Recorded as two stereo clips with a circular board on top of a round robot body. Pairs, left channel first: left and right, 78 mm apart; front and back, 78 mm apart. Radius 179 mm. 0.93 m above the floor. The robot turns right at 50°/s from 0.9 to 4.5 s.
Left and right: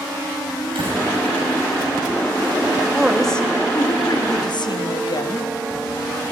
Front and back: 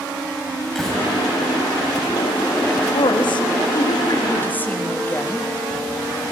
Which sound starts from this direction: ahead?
A woman speaking, at 2.9 s.